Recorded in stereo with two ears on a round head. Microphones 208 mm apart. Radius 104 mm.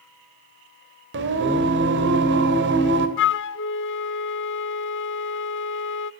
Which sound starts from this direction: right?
Singing, at 1.1 s.